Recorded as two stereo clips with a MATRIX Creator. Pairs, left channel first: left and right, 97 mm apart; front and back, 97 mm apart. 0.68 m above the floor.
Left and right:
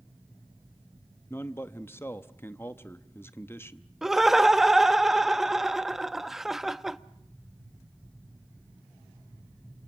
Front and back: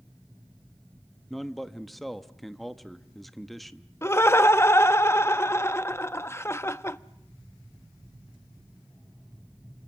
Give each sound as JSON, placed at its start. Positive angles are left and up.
{"t": 1.3, "sound": "a man speaking", "azimuth_deg": 90, "distance_m": 0.8}
{"t": 4.0, "sound": "laughter", "azimuth_deg": -5, "distance_m": 0.6}